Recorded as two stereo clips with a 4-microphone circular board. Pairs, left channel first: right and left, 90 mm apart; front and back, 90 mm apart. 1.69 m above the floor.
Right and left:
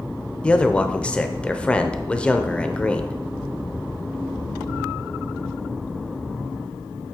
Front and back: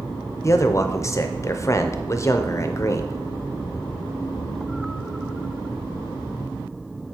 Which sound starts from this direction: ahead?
A man speaking, at 0.4 s.